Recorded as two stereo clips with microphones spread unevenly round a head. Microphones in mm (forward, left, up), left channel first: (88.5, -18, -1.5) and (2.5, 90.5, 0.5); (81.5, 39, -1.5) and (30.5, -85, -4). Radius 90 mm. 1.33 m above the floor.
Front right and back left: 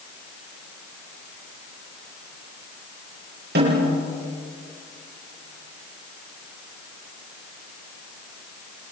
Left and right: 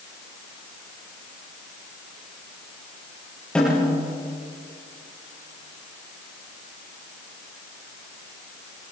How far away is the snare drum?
About 9 m.